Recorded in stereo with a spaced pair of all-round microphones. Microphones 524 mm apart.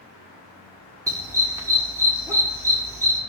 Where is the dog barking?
5° right (ahead or behind), 1.6 m.